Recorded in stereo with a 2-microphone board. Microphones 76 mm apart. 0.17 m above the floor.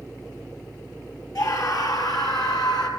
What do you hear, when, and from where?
1.4 s a scream: 50° left (ahead or behind), 3.5 m; by 2.9 s 65° left (ahead or behind), 4.5 m